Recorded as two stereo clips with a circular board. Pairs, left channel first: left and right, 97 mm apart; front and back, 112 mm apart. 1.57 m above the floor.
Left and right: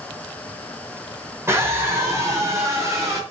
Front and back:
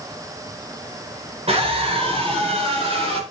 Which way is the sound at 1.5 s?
150° right.